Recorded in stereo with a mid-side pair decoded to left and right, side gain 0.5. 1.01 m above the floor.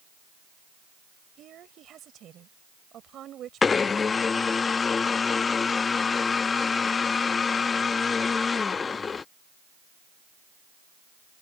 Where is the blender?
35° left.